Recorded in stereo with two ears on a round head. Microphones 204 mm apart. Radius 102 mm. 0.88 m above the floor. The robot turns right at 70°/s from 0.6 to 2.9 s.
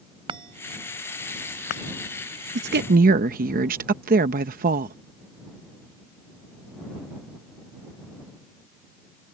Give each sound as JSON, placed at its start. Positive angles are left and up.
{"t": 0.3, "sound": "a chime", "side_deg": -25}
{"t": 2.5, "sound": "a woman speaking", "side_deg": -50}